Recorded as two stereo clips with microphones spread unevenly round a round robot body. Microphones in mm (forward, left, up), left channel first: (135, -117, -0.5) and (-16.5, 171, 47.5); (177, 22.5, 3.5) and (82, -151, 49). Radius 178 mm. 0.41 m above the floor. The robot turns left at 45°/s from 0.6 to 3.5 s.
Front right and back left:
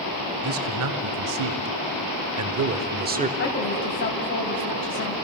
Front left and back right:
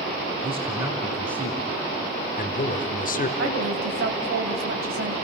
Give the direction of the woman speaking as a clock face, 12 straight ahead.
4 o'clock.